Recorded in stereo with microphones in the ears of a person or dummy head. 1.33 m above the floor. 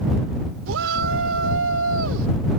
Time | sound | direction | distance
0.7 | a shout | 85° right | ?